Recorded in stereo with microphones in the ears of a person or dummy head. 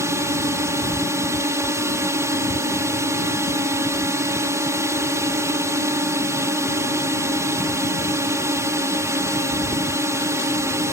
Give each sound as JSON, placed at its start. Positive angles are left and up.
{"t": 0.0, "sound": "a drone", "side_deg": -10}